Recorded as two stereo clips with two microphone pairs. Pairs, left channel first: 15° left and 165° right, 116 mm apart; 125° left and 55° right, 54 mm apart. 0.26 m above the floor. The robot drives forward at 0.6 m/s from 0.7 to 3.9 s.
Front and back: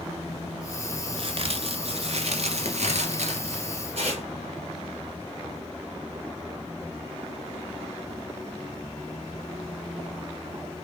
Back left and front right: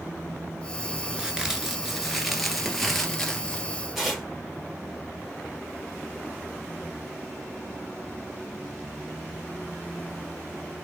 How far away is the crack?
About 1.8 m.